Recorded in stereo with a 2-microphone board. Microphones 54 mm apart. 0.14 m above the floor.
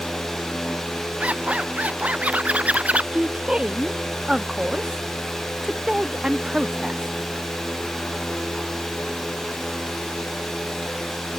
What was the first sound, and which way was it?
A zipper, 25° right (ahead or behind).